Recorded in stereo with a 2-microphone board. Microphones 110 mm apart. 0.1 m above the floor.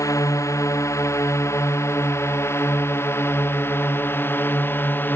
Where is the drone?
30° left (ahead or behind); by 5.2 s 20° left (ahead or behind).